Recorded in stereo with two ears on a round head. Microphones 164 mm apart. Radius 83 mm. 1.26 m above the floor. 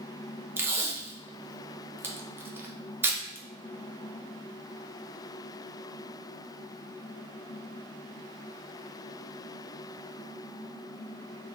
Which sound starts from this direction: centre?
Tape being pulled, at 0.6 s.